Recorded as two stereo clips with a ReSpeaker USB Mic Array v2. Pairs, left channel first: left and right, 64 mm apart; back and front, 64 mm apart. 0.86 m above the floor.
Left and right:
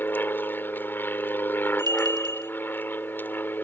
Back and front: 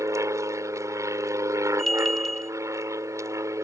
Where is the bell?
95° right.